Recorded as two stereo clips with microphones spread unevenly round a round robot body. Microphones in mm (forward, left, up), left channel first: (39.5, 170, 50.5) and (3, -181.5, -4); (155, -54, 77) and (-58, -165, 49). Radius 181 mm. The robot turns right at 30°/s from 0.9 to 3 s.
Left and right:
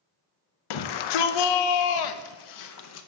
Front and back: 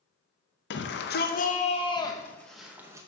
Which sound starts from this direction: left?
A shout, at 0.7 s.